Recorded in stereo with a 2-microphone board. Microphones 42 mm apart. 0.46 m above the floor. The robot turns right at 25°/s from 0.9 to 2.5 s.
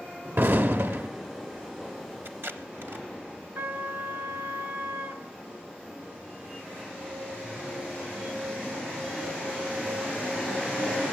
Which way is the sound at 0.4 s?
65° right (ahead or behind).